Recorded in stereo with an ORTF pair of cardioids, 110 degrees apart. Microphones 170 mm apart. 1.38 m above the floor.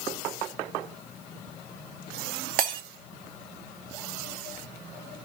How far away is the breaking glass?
About 1.4 m.